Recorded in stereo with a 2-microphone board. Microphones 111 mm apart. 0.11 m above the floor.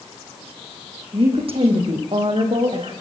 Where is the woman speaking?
55° right (ahead or behind), 6.5 m; by 2.9 s 65° right (ahead or behind), 8 m.